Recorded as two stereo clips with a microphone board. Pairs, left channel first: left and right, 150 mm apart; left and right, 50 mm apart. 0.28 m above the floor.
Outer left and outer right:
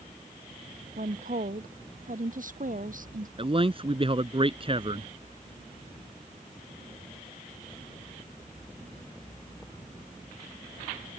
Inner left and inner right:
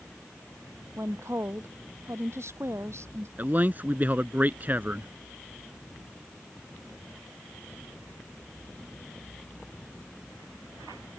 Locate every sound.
1.0 s a woman speaking: 65° right (ahead or behind)
3.4 s a man speaking: 40° right (ahead or behind)